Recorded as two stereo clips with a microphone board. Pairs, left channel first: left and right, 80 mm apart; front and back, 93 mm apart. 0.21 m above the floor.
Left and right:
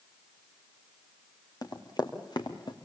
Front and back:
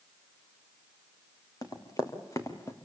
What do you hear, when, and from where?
1.6 s running footsteps: 50° left, 3.5 m; by 2.8 s 60° left, 3.5 m